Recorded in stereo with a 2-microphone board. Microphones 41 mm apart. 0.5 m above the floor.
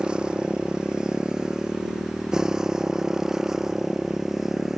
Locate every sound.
0.0 s a motorcycle: 20° right (ahead or behind); by 4.8 s 10° right (ahead or behind)